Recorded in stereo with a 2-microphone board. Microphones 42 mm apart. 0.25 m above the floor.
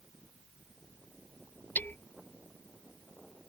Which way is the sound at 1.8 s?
50° left (ahead or behind).